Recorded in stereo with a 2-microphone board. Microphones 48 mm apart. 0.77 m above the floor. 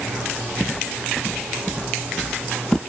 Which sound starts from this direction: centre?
Footsteps, at 0.6 s.